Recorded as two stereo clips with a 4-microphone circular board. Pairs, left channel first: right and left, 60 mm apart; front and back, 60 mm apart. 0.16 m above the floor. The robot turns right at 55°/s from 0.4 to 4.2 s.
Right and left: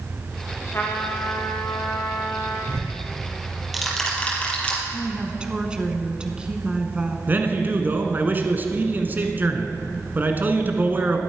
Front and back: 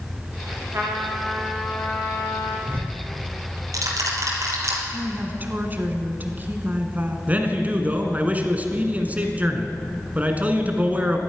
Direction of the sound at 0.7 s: 140° right.